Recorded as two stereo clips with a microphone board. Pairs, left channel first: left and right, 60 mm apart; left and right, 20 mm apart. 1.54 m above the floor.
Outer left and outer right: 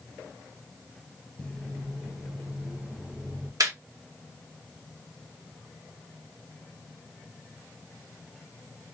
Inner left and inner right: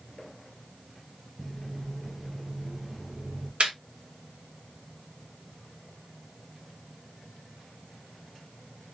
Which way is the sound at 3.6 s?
75° right (ahead or behind).